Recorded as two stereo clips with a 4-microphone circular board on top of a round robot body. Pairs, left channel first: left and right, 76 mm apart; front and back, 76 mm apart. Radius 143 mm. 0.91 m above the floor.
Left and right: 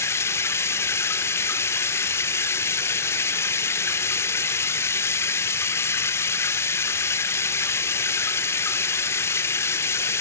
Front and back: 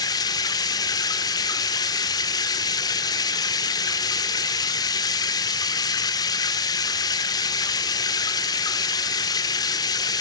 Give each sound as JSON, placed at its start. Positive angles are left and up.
{"t": 0.0, "sound": "running water", "azimuth_deg": 35, "distance_m": 0.9}